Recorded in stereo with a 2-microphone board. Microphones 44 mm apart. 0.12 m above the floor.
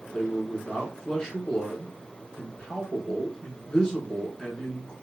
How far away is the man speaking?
About 1.1 m.